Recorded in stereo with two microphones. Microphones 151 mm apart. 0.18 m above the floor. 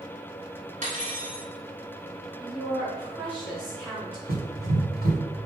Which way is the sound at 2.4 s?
35° right (ahead or behind).